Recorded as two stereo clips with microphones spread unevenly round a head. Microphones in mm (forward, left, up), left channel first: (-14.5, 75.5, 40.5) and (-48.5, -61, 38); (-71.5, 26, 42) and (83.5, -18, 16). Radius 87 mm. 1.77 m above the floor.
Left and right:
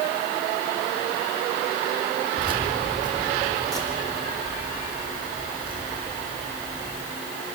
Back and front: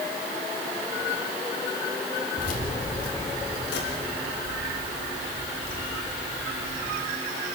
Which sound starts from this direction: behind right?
Keys jangling, at 2.4 s.